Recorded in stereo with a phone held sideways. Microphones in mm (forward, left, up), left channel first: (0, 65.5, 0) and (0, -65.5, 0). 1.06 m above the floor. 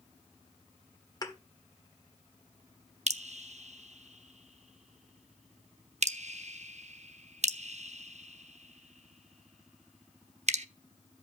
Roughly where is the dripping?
Right.